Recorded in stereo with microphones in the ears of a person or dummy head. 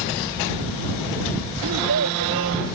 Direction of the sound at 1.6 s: 70° right (ahead or behind).